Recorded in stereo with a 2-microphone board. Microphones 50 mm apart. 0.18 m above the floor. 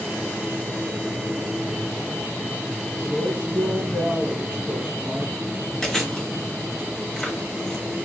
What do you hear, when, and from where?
3.0 s a woman speaking: 40° right (ahead or behind), 1.7 m
5.8 s chewing: 10° left (ahead or behind), 1.7 m